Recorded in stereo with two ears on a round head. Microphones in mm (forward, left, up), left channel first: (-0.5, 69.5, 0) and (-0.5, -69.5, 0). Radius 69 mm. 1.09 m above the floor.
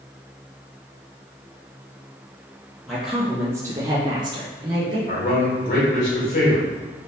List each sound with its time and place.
2.9 s a woman speaking: centre (ahead or behind), 0.8 m; by 5.0 s 30° right (ahead or behind), 1.3 m
5.1 s a man speaking: 60° left (ahead or behind), 1.8 m